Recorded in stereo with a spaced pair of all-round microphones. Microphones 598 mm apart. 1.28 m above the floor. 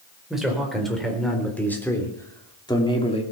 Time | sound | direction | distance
0.3 | a man speaking | centre (ahead or behind) | 4.5 m